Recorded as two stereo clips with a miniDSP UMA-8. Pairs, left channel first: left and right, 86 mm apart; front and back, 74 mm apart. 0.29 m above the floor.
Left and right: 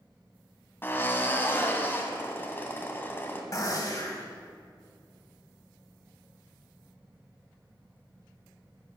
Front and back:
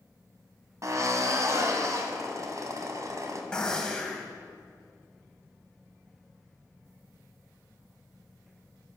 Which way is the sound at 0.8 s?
150° left.